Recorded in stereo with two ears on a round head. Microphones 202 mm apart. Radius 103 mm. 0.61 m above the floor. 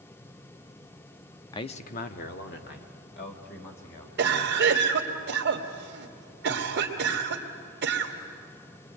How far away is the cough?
About 2.5 m.